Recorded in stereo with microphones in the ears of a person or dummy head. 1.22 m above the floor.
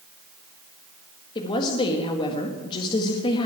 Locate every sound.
1.4 s a woman speaking: 30° left (ahead or behind), 1.7 m